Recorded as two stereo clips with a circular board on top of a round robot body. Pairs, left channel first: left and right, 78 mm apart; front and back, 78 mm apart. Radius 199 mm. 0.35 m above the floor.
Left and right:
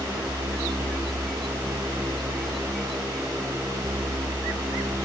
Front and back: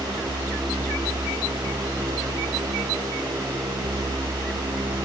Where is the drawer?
I don't hear a drawer.